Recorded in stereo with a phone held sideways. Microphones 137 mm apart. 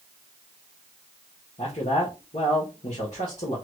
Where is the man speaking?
65° left (ahead or behind), 1.2 m.